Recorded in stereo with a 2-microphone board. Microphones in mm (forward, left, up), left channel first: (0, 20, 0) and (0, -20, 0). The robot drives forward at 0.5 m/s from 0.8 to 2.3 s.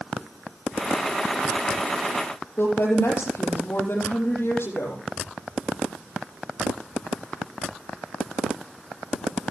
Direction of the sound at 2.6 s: 75° left (ahead or behind).